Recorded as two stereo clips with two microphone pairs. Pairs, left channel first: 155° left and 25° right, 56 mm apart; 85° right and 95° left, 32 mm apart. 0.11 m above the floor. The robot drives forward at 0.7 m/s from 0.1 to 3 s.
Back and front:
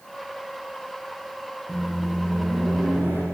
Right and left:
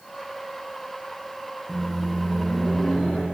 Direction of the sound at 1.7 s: 155° right.